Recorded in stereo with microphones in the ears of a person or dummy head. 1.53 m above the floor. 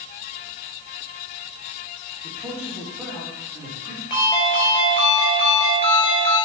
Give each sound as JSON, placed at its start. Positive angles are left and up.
{"t": 2.2, "sound": "a man speaking", "side_deg": -10, "distance_m": 2.0}
{"t": 4.1, "sound": "a ringtone", "side_deg": 20, "distance_m": 4.0}